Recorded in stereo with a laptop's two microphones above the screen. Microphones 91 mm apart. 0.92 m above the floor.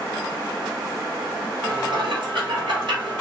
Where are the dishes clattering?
70° right (ahead or behind), 1.2 m.